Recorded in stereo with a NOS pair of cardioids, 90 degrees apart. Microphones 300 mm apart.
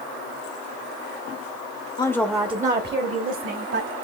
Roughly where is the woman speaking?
Ahead.